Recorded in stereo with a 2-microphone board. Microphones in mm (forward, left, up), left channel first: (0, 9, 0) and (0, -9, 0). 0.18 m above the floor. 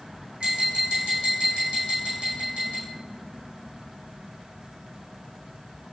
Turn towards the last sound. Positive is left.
turn(degrees=-70)  # may be behind; listen again after turning